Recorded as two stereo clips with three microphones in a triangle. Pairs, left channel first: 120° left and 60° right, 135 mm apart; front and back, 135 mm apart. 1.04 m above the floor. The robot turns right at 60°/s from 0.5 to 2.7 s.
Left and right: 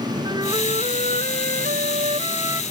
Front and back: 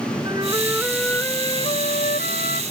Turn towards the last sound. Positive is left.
turn(degrees=15)